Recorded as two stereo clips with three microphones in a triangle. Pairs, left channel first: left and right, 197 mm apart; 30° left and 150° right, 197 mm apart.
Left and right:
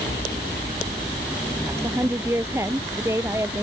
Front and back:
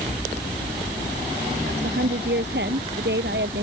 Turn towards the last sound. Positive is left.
turn(degrees=-165)